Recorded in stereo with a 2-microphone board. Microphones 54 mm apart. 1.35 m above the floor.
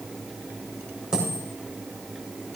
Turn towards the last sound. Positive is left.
turn(degrees=-15)  # may be behind; listen again after turning